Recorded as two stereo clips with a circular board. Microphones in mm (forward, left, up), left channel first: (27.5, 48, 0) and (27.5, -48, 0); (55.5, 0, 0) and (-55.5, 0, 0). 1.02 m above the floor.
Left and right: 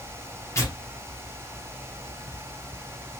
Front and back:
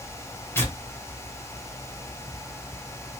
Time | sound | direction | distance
0.6 | tearing paper | 55° left | 0.8 m